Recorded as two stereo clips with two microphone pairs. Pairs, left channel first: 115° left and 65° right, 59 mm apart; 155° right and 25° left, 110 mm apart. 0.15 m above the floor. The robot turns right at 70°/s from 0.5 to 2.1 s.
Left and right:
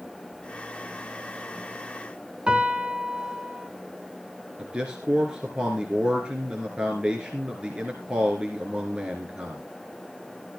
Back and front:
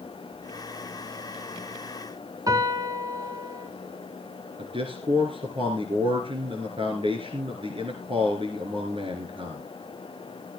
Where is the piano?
5° right, 1.4 m.